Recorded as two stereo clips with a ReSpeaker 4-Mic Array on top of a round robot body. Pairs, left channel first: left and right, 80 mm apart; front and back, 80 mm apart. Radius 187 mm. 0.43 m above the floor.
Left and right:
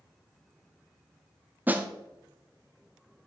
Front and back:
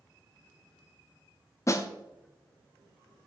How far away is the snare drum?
About 1.0 m.